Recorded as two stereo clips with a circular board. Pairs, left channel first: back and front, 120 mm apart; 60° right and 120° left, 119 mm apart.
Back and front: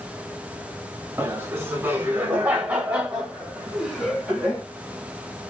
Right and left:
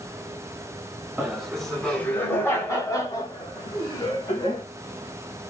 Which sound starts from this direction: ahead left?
Laughter, at 1.2 s.